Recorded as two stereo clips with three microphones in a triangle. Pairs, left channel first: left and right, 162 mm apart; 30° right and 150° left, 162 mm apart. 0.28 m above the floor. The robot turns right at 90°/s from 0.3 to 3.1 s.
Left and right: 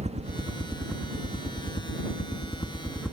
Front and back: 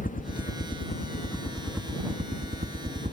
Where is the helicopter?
50° right; by 3.1 s 175° right.